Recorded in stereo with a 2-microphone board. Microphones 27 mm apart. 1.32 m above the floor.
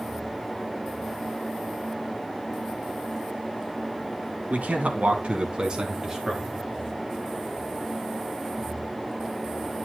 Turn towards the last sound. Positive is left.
turn(degrees=-10)  # may be behind; listen again after turning